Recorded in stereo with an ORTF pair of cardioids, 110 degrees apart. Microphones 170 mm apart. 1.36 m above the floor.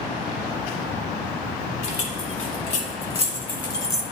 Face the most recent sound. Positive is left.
turn(degrees=10)